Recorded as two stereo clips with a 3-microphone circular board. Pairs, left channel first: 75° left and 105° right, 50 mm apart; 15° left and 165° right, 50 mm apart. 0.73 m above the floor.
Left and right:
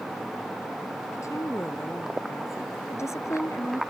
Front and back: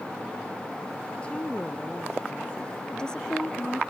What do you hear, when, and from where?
1.1 s a woman speaking: 85° left
2.9 s a woman speaking: 90° left